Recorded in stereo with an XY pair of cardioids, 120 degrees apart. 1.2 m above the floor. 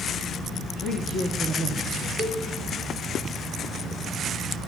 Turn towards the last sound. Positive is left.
turn(degrees=35)